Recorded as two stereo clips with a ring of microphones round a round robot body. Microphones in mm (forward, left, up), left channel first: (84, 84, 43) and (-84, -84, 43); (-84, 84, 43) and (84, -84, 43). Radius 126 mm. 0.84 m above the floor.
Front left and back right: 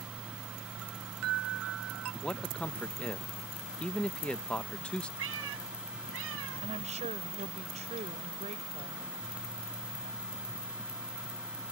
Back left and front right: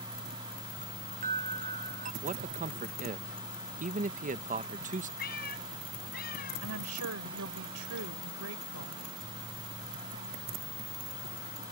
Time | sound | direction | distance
0.8 | a chime | 105° right | ?
2.2 | a man speaking | 35° right | ?
5.2 | a cat meowing | 170° right | ?
6.6 | a woman speaking | 70° right | ?